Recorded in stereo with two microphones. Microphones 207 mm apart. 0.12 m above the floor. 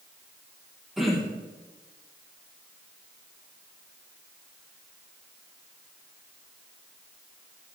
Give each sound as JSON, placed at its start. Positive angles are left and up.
{"t": 1.0, "sound": "throat clearing", "side_deg": 0, "distance_m": 3.5}